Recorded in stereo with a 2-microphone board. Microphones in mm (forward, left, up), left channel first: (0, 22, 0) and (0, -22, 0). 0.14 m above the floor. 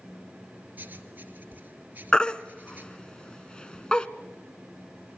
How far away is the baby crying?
About 0.9 m.